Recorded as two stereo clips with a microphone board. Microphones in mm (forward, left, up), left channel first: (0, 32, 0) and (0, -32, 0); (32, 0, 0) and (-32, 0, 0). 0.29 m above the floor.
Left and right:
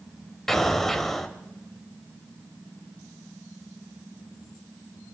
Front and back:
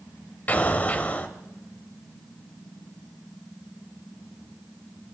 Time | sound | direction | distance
0.5 | an explosion | 10° left | 1.1 m